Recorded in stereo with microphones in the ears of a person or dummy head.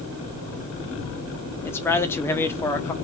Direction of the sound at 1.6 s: 10° left (ahead or behind).